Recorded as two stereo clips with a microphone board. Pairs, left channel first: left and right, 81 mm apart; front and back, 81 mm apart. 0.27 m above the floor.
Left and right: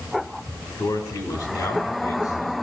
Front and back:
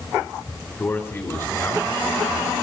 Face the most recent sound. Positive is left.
turn(degrees=50)